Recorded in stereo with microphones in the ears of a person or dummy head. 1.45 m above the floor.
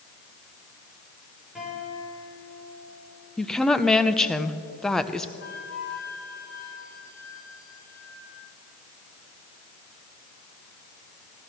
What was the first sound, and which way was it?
A guitar, centre (ahead or behind).